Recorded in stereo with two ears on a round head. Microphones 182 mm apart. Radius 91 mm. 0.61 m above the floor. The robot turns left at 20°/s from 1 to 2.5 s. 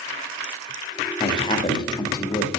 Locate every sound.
1.2 s a man speaking: 25° left (ahead or behind), 0.8 m; by 2.5 s 15° left (ahead or behind), 0.8 m